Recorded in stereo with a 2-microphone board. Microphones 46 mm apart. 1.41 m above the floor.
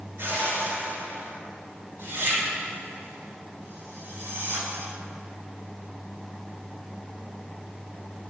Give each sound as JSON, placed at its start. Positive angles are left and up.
{"t": 0.2, "sound": "a whoosh", "side_deg": -55, "distance_m": 6.0}